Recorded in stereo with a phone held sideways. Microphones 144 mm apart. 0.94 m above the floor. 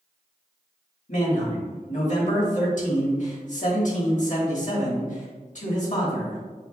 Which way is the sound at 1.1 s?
60° left (ahead or behind).